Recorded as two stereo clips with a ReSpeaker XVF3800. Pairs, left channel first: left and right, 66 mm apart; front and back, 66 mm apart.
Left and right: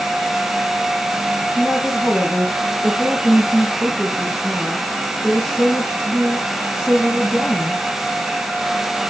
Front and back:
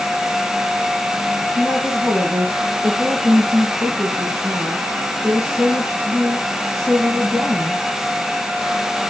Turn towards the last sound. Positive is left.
turn(degrees=155)